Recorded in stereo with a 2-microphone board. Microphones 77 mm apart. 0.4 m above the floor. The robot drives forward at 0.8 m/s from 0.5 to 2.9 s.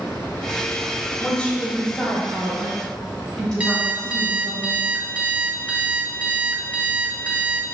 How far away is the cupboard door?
I don't hear a cupboard door.